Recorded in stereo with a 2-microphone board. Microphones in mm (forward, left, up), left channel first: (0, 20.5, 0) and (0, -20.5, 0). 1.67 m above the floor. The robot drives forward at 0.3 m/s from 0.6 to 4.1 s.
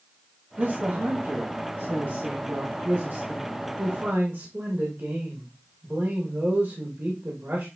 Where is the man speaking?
60° right (ahead or behind), 2 m; by 7.7 s 75° right (ahead or behind), 1.9 m.